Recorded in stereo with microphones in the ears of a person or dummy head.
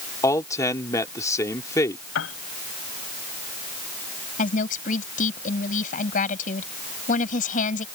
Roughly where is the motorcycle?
I don't hear a motorcycle.